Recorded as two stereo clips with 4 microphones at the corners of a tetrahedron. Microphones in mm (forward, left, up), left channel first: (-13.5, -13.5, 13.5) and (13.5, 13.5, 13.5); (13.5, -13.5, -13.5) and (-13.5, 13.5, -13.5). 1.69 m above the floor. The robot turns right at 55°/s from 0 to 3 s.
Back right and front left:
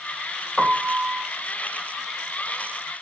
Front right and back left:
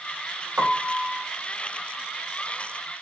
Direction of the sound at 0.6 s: 140° left.